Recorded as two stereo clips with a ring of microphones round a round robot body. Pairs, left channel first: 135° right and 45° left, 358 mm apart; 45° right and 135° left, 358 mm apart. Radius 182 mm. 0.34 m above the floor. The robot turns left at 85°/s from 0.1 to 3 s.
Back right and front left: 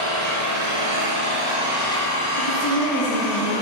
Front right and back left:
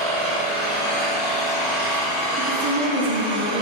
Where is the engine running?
100° left, 3.5 m; by 3.6 s 150° right, 3.5 m.